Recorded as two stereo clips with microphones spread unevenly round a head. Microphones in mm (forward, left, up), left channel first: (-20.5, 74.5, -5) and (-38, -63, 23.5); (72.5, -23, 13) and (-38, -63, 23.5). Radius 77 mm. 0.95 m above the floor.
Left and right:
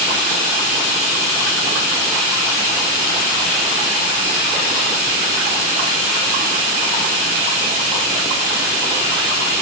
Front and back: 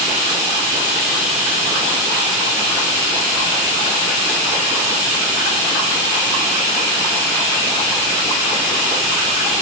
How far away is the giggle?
I don't hear a giggle.